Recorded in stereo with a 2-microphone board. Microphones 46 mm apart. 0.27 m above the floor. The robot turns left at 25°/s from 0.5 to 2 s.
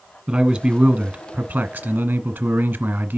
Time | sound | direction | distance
0.3 | a man speaking | 15° right | 1.2 m